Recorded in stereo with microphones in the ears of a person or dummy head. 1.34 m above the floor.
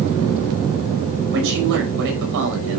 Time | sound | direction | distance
1.3 | a man speaking | 65° right (ahead or behind) | 6 m